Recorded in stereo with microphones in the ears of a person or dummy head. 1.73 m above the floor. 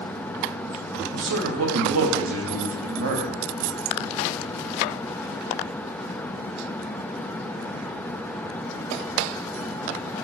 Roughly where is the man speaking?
Right.